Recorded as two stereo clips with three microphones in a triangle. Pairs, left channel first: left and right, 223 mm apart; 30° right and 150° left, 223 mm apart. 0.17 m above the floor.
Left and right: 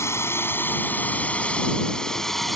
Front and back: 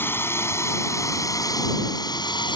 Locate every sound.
0.0 s a drone: 35° left; by 2.6 s straight ahead